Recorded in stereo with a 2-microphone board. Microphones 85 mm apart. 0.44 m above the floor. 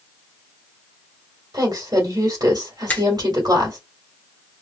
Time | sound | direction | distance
1.5 | a woman speaking | 50° right (ahead or behind) | 1.8 m
2.9 | a finger snap | 20° left (ahead or behind) | 1.0 m